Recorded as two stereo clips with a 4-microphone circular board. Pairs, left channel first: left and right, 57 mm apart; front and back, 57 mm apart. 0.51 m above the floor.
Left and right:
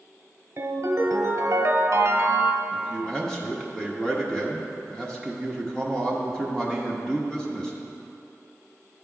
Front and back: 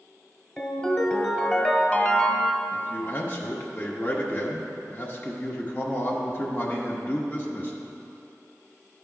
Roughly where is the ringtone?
Right.